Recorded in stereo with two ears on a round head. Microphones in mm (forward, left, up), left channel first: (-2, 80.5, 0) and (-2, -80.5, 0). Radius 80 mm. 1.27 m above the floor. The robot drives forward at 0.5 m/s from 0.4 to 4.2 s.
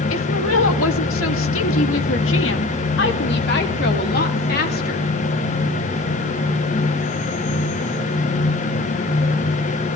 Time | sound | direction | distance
0.1 | a woman speaking | 80° left | 2.5 m